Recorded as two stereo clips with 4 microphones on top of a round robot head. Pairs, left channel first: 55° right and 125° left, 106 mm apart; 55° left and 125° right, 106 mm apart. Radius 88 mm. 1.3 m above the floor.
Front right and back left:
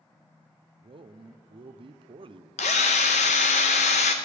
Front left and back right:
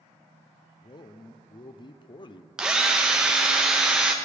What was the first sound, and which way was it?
A man speaking, 95° left.